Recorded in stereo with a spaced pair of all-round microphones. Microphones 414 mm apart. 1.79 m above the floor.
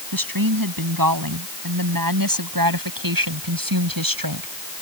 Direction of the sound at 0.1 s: 55° right (ahead or behind).